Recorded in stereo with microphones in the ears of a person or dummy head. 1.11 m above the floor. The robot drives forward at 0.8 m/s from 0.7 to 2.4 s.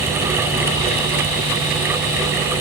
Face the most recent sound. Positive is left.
No sound to turn to.